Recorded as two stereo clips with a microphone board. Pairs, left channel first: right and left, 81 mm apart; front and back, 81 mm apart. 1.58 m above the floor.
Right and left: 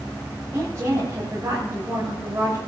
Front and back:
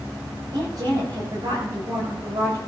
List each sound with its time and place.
0.5 s a woman speaking: 150° left, 7.5 m